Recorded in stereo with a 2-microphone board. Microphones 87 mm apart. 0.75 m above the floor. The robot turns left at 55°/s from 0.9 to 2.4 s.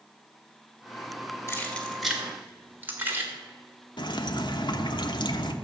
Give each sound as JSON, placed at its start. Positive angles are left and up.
{"t": 1.5, "sound": "keys jangling", "side_deg": 30, "distance_m": 1.9}
{"t": 4.0, "sound": "dripping", "side_deg": 55, "distance_m": 0.9}